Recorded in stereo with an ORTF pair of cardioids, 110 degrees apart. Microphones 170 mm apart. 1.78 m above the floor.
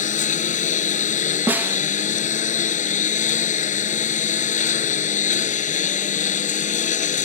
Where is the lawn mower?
45° left.